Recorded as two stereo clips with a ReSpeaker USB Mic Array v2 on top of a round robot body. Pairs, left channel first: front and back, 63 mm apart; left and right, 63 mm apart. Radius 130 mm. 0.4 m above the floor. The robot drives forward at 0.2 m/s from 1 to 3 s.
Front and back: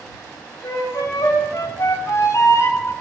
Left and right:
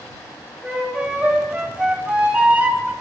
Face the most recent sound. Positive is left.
turn(degrees=-30)